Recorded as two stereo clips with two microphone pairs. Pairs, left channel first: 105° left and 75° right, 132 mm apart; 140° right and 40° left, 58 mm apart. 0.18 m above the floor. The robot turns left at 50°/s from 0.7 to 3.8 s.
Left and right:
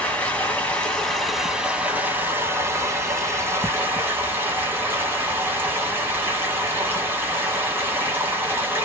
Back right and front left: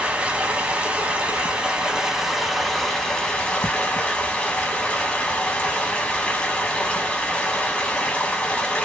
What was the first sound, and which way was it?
Running water, 40° left.